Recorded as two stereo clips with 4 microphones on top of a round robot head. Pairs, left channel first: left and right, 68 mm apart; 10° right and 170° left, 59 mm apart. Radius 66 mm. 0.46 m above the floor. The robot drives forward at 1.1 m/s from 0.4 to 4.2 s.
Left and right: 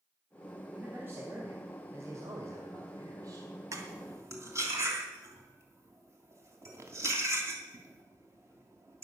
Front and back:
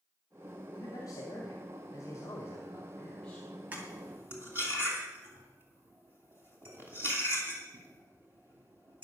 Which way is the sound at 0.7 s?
25° right.